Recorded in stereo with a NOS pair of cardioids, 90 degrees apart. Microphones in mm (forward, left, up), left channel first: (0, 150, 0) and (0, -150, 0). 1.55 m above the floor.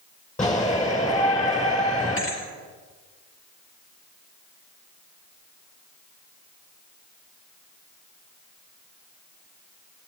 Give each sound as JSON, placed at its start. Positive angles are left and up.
{"t": 0.4, "sound": "a shout", "azimuth_deg": 25, "distance_m": 7.5}
{"t": 2.2, "sound": "a thud", "azimuth_deg": 45, "distance_m": 5.0}